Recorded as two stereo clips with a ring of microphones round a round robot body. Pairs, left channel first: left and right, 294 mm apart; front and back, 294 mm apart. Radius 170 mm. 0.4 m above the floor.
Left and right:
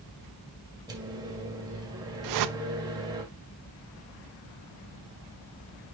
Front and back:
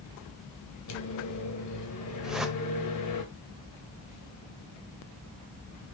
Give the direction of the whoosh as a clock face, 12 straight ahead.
3 o'clock.